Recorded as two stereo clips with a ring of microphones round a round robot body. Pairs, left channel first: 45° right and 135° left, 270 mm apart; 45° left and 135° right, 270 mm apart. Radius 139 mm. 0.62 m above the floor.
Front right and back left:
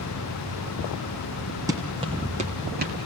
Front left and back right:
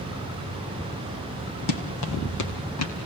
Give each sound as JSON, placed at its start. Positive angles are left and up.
{"t": 1.7, "sound": "running footsteps", "azimuth_deg": 55, "distance_m": 2.5}